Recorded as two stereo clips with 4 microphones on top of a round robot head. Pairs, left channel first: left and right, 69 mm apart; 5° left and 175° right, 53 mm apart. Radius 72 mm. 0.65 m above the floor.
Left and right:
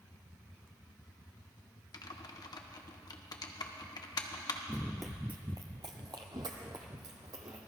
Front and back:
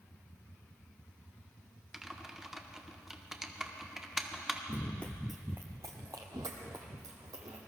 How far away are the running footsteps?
About 0.7 m.